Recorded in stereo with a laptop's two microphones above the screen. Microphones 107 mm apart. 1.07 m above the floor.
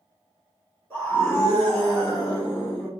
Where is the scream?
20° left (ahead or behind), 1.9 m; by 2.9 s 55° left (ahead or behind), 1.5 m.